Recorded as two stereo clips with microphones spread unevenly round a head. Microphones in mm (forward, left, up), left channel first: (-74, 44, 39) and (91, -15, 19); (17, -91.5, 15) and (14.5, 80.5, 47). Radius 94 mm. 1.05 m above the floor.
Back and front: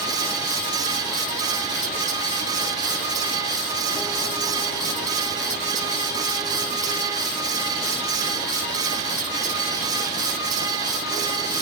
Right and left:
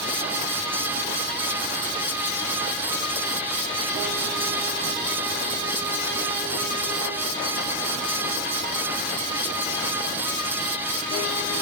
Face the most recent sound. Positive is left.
No sound to turn to.